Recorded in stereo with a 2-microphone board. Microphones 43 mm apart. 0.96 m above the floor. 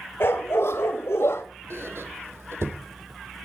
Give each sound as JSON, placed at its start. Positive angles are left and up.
{"t": 0.2, "sound": "a dog barking", "side_deg": 60, "distance_m": 1.7}
{"t": 1.7, "sound": "a squeak", "side_deg": -80, "distance_m": 1.7}